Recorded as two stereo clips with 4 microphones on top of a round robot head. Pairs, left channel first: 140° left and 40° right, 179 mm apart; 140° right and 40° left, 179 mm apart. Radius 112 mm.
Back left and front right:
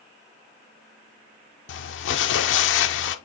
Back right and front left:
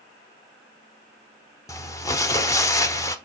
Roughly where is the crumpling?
Behind left.